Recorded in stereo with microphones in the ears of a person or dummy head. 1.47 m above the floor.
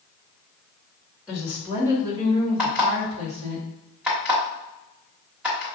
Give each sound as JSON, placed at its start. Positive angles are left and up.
{"t": 1.3, "sound": "a woman speaking", "side_deg": -10, "distance_m": 1.4}
{"t": 2.6, "sound": "an alarm clock", "side_deg": -10, "distance_m": 1.4}